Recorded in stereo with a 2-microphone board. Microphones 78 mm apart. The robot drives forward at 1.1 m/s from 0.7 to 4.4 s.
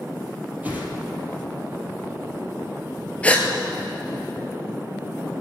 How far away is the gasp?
About 1.6 m.